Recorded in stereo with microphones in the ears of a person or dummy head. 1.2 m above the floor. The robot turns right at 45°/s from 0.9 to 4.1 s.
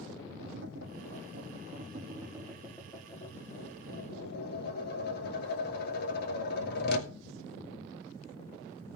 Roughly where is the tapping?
Right.